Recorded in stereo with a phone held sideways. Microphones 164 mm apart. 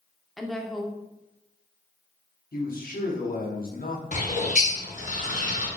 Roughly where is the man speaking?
Left.